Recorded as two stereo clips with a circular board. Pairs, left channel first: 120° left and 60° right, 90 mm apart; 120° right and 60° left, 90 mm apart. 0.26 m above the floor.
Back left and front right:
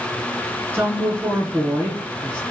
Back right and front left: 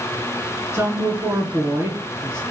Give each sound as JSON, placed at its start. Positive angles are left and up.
{"t": 0.7, "sound": "a woman speaking", "azimuth_deg": 5, "distance_m": 2.5}